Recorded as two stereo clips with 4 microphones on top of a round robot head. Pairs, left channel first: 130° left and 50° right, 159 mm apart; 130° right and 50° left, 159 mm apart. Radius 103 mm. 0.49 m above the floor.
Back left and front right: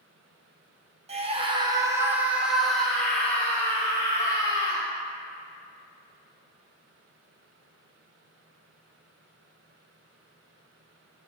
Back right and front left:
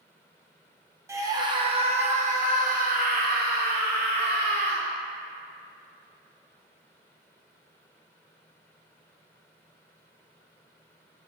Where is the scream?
15° right, 1.1 m; by 4.8 s 65° left, 2.5 m.